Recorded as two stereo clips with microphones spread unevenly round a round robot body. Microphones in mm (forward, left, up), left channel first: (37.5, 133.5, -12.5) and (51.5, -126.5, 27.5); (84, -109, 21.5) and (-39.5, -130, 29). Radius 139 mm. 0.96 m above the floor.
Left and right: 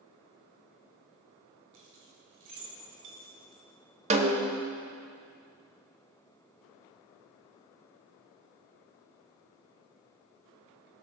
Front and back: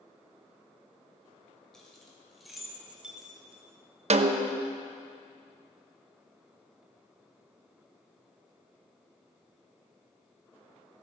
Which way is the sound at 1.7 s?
75° right.